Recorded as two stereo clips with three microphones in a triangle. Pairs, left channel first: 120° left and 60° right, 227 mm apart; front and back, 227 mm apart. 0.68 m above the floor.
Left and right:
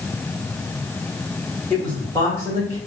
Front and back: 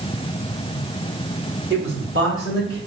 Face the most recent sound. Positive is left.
turn(degrees=175)